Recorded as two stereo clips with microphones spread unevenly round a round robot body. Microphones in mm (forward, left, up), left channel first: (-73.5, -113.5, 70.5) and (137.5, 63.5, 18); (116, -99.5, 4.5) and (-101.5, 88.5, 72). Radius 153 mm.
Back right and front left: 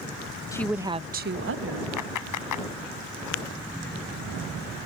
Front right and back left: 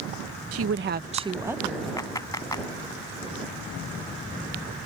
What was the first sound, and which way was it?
A woman speaking, 135° left.